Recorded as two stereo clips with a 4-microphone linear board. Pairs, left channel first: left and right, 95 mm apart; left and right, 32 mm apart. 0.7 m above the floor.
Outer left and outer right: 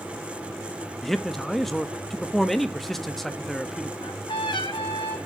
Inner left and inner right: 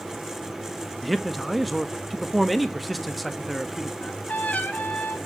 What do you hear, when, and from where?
1.0 s a man speaking: centre (ahead or behind), 1.1 m
4.0 s a trumpet: 60° left (ahead or behind), 5.5 m